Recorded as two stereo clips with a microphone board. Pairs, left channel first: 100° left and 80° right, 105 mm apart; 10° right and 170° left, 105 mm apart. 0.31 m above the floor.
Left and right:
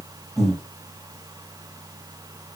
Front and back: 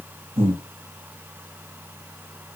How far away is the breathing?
About 3.5 m.